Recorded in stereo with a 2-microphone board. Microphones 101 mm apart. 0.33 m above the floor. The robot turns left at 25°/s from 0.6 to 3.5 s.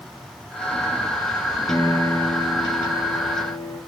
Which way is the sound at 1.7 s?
150° left.